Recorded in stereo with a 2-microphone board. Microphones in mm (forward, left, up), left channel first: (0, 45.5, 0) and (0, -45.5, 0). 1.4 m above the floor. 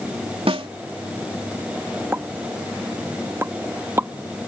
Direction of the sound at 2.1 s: 25° right (ahead or behind).